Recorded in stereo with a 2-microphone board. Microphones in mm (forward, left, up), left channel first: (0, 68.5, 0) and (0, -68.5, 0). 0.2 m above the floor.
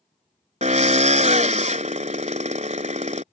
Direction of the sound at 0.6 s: 60° right (ahead or behind).